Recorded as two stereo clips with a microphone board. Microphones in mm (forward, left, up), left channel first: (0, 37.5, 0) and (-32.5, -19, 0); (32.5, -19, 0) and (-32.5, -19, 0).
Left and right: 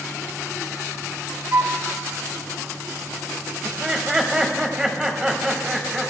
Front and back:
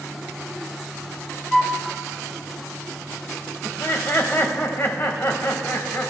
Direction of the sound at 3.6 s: 45° right.